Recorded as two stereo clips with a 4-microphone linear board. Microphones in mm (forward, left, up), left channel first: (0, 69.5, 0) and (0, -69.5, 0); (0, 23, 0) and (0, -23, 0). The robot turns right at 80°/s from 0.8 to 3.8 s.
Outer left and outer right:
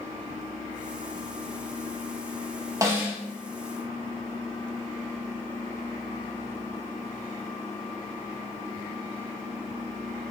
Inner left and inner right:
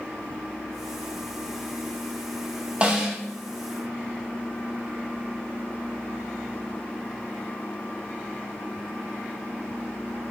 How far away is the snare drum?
About 1.0 m.